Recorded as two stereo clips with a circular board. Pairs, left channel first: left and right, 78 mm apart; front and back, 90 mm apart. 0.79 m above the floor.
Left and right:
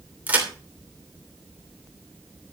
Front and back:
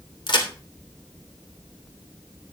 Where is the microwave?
No microwave in this recording.